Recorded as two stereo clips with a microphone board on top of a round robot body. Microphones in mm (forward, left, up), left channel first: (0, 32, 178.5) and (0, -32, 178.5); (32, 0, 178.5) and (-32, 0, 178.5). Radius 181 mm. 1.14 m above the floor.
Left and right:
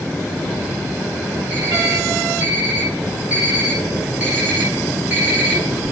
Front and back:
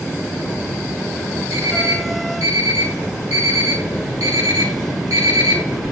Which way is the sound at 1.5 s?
165° right.